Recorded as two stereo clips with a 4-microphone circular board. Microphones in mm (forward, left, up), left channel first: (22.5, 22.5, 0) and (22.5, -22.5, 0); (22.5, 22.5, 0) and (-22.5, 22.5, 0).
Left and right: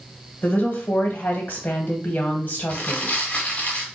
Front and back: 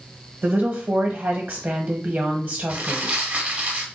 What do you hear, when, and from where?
0.4 s a woman speaking: 140° left, 1.1 m
2.7 s crumpling: 135° left, 1.2 m